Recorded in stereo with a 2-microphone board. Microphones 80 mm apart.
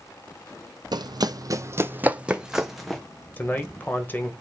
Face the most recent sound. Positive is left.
turn(degrees=25)  # may be behind; listen again after turning